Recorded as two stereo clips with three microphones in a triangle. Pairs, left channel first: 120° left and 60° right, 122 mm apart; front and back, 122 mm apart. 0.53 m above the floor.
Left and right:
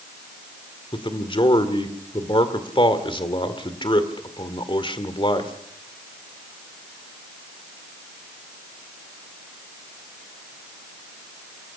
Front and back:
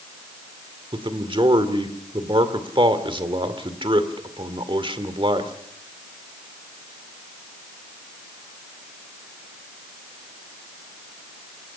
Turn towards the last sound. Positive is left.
turn(degrees=150)